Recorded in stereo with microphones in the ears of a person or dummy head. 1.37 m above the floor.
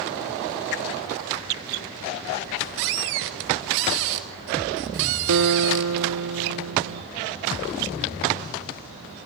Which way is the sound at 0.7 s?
50° left (ahead or behind).